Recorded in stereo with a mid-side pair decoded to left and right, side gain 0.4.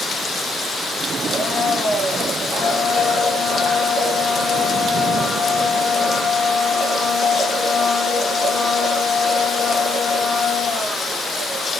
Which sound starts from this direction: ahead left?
A blender, at 1.3 s.